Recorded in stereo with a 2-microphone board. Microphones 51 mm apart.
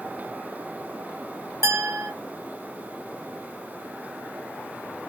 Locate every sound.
1.6 s a clink: 70° right (ahead or behind), 1.1 m